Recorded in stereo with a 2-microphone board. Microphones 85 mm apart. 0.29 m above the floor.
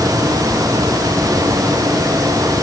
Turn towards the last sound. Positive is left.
No sound to turn to.